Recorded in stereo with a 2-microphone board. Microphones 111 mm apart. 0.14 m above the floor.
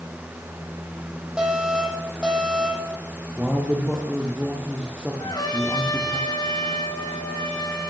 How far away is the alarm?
About 9 m.